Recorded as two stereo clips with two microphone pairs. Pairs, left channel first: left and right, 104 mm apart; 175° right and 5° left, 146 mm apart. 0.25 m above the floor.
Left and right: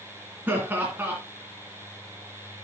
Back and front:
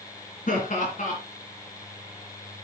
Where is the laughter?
160° right, 2.5 m.